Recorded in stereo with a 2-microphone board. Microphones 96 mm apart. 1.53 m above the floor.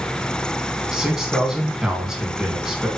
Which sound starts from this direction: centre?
A man speaking, at 0.9 s.